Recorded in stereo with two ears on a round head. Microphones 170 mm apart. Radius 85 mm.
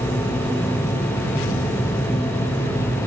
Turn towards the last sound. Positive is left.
No sound to turn to.